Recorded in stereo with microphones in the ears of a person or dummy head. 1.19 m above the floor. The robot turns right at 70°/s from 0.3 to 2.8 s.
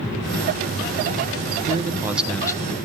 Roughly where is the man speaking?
Ahead right.